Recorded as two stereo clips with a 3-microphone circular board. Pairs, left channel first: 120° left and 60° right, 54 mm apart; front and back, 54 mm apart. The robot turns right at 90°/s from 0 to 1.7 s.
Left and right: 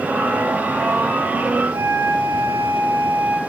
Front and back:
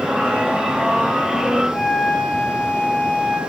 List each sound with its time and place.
1.7 s a flute: 65° right, 1.8 m